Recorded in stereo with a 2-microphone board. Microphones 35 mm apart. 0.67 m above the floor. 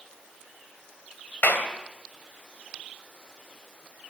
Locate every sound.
1.4 s a clap: 65° left (ahead or behind), 2.5 m